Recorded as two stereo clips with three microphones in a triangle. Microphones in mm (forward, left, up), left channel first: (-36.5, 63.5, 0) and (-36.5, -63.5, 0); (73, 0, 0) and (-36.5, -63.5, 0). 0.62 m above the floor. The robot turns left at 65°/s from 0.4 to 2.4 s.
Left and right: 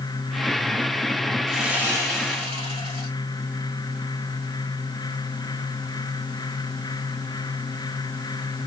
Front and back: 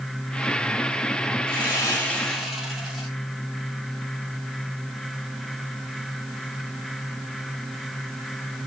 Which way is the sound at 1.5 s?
Straight ahead.